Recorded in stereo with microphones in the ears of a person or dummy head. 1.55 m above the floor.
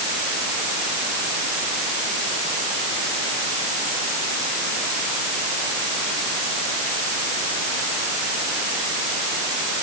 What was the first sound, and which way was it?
Only background noise.